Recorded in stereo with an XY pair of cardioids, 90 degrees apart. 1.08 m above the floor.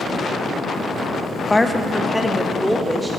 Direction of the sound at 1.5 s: 15° left.